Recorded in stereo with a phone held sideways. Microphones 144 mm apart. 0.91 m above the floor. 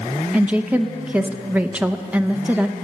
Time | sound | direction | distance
0.3 | a woman speaking | 10° right (ahead or behind) | 0.6 m